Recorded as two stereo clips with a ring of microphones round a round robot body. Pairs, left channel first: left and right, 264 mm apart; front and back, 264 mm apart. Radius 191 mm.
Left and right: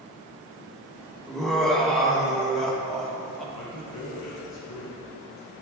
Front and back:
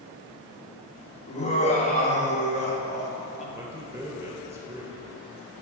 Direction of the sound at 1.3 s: 5° left.